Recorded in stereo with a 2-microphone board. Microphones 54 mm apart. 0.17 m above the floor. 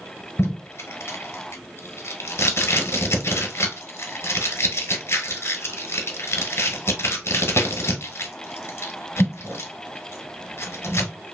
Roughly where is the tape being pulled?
Left.